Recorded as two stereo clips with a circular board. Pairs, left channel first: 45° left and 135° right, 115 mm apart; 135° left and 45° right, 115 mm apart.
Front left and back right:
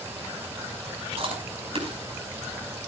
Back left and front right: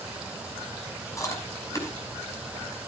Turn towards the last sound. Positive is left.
turn(degrees=-165)